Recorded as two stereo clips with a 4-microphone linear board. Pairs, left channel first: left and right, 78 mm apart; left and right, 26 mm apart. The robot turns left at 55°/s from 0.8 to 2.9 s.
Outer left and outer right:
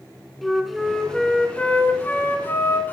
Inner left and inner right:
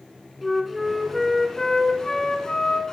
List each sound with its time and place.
0.4 s a flute: centre (ahead or behind), 1.4 m; by 2.9 s 25° left (ahead or behind), 1.4 m